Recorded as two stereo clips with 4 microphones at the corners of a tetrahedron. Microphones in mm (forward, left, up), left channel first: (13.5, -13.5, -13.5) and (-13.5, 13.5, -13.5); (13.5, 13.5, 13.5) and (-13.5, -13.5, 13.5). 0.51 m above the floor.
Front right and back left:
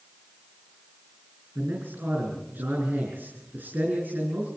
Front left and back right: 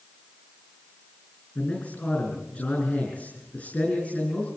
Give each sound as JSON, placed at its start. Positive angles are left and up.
{"t": 1.6, "sound": "a man speaking", "azimuth_deg": 95, "distance_m": 6.5}